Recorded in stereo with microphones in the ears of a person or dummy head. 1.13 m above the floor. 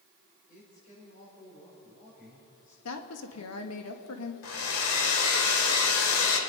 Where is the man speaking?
45° left (ahead or behind), 5 m.